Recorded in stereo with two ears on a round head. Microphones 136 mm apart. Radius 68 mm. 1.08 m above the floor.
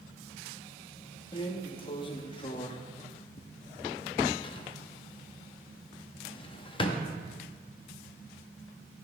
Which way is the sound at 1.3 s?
35° left (ahead or behind).